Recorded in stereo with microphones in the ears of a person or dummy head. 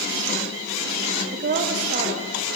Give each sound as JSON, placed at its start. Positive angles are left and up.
{"t": 1.3, "sound": "a woman speaking", "side_deg": -45, "distance_m": 0.8}